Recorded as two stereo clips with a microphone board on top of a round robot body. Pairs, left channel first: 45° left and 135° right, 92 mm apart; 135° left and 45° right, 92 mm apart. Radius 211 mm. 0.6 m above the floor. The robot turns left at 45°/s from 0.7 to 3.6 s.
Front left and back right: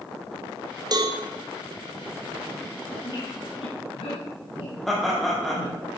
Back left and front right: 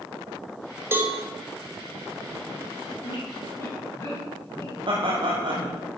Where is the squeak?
100° left, 2.5 m; by 5.8 s 75° left, 2.5 m.